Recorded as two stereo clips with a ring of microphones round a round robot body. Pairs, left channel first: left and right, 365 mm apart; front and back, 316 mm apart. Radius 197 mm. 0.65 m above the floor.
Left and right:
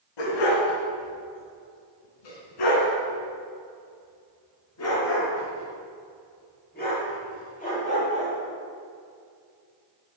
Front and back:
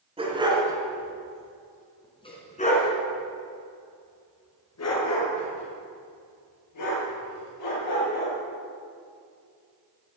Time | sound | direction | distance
0.2 | a dog barking | 105° left | 4 m